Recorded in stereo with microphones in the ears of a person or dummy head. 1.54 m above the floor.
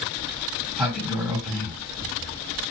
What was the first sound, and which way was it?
A sliding door, 5° right (ahead or behind).